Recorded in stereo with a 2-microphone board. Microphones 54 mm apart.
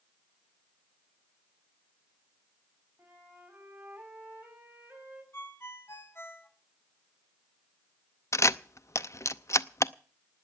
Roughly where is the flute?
Right.